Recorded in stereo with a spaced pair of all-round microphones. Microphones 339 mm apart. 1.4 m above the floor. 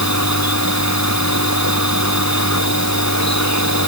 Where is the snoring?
I don't hear snoring.